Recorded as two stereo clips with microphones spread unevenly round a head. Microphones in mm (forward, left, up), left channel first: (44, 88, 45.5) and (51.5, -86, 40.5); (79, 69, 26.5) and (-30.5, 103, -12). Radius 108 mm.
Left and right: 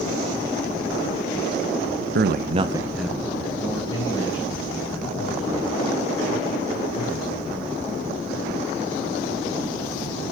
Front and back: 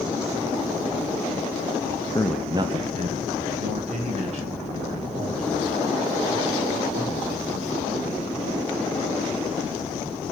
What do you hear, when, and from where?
2.1 s a man speaking: 100° right, 0.5 m; by 7.9 s 155° left, 5 m